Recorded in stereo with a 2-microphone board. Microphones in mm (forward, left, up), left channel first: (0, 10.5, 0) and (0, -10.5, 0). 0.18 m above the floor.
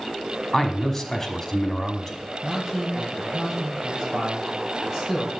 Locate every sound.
0.5 s a man speaking: 15° left (ahead or behind), 1.1 m
2.4 s a man speaking: 30° right (ahead or behind), 4 m